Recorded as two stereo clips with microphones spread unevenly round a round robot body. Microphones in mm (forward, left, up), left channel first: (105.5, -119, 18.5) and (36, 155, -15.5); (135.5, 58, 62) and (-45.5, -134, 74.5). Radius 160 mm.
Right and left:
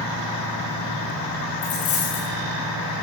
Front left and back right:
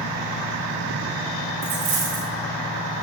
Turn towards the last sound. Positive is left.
turn(degrees=-95)